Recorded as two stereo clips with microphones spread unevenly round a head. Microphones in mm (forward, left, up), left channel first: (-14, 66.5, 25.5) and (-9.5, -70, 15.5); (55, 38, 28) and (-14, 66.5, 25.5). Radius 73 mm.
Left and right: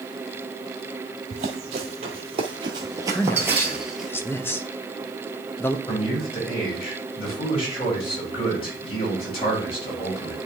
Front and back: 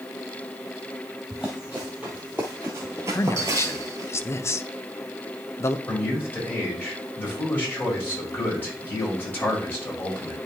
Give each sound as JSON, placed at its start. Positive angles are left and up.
{"t": 1.3, "sound": "running footsteps", "azimuth_deg": -115, "distance_m": 1.7}
{"t": 3.1, "sound": "a man speaking", "azimuth_deg": 20, "distance_m": 0.7}
{"t": 5.9, "sound": "a man speaking", "azimuth_deg": 40, "distance_m": 4.5}